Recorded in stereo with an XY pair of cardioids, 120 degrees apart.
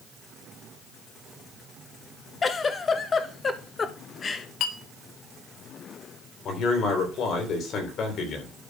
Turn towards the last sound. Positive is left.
turn(degrees=55)